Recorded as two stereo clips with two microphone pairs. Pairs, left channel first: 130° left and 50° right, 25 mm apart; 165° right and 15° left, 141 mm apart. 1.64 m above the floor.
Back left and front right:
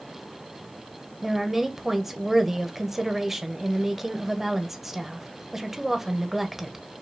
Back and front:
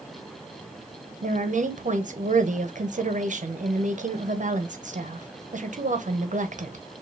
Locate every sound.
1.2 s a woman speaking: 25° left, 0.9 m